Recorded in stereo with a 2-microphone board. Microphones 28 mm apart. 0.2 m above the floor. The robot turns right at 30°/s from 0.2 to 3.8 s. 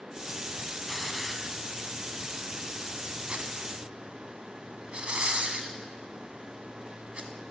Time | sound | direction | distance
0.9 | a hiss | 5° left (ahead or behind) | 0.8 m